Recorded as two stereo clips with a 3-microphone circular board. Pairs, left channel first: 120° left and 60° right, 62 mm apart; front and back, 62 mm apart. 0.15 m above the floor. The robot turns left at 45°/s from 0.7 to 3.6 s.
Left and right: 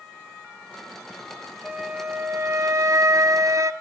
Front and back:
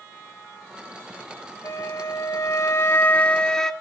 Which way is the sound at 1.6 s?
5° left.